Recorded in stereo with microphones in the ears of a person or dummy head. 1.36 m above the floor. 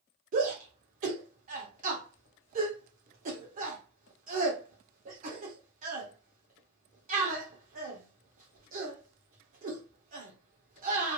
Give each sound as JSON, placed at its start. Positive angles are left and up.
{"t": 0.3, "sound": "a shout", "side_deg": -50, "distance_m": 1.3}